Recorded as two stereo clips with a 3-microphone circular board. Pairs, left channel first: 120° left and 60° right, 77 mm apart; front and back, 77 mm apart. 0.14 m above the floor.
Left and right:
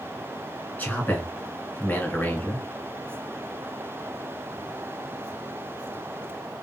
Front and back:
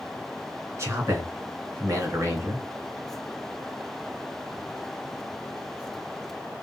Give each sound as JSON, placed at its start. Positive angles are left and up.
{"t": 0.8, "sound": "a man speaking", "azimuth_deg": 170, "distance_m": 1.8}